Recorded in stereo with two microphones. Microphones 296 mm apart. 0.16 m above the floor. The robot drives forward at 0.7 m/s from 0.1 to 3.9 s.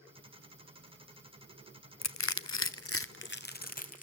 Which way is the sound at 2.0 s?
60° left (ahead or behind).